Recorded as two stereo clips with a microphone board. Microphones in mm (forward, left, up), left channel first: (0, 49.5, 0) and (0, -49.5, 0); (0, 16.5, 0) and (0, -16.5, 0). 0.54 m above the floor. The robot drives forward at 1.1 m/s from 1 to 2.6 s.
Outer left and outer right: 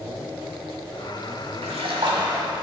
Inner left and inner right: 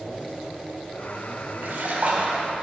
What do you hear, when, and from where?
1.6 s a splash: 85° right, 0.8 m; by 2.5 s 40° right (ahead or behind), 1.2 m